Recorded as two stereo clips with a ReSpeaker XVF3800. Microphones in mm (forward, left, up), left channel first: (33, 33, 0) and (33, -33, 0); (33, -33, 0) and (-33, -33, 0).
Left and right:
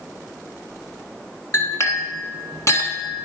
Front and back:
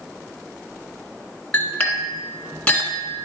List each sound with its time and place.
1.5 s a clink: 70° left, 1.7 m